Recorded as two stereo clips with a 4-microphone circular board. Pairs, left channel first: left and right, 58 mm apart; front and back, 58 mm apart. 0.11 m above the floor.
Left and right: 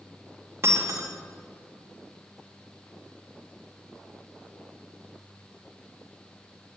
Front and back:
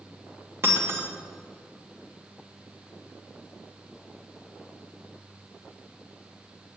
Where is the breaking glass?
135° right, 3 m.